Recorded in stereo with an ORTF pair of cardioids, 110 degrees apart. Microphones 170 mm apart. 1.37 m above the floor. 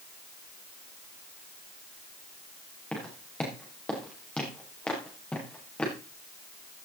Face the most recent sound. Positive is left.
turn(degrees=5)